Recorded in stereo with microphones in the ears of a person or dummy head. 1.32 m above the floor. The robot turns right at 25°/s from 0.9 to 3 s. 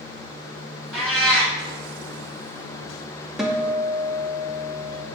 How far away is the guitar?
About 0.6 m.